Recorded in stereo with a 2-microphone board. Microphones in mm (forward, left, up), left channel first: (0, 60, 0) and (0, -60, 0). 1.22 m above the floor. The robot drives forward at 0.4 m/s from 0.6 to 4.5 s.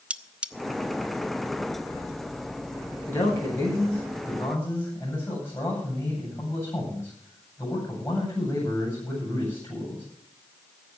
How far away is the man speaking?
About 9 m.